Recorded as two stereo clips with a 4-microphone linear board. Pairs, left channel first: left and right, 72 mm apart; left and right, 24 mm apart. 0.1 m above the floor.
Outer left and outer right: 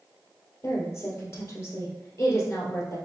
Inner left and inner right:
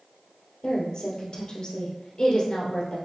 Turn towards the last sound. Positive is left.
turn(degrees=40)  # may be behind; listen again after turning